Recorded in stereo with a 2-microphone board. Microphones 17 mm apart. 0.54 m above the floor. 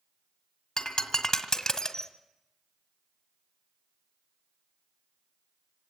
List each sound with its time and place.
0.8 s breaking glass: 45° left (ahead or behind), 1.9 m